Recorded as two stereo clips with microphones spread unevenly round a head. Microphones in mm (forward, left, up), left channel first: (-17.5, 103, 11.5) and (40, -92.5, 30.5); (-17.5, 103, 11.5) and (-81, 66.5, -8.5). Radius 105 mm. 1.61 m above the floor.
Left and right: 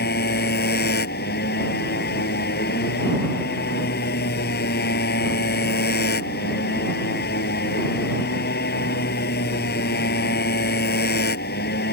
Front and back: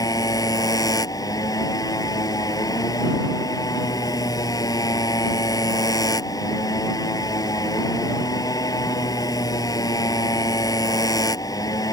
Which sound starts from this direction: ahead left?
A motorcycle, at 0.0 s.